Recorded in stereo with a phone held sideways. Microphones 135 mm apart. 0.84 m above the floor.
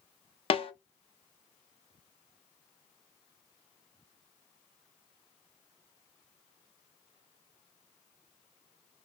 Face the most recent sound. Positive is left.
turn(degrees=45)  # may be behind; listen again after turning